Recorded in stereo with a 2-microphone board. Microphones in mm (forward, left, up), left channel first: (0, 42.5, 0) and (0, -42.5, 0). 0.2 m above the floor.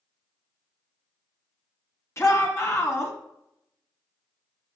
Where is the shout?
35° left (ahead or behind), 1.9 m.